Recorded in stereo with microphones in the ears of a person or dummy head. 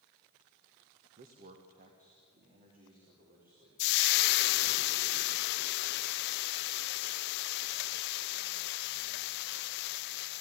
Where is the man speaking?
45° right (ahead or behind), 1.5 m.